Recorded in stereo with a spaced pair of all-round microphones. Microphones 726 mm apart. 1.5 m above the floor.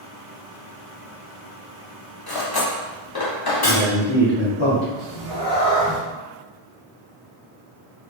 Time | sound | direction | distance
2.3 | cutlery clinking | 35° left (ahead or behind) | 0.7 m
3.6 | a man speaking | 40° left (ahead or behind) | 0.8 m
5.0 | a cat meowing | 35° left (ahead or behind) | 1.2 m